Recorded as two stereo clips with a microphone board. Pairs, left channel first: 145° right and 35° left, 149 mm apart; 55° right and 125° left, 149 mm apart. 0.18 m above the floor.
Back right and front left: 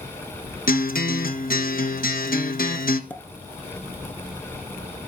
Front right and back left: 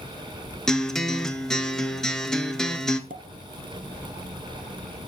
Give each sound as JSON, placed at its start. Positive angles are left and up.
{"t": 0.7, "sound": "a guitar", "azimuth_deg": -140, "distance_m": 1.3}
{"t": 3.1, "sound": "a pop", "azimuth_deg": 135, "distance_m": 1.1}